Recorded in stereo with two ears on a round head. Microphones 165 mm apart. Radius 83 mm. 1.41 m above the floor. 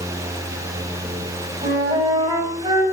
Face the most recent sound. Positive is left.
turn(degrees=-25)  # may be behind; listen again after turning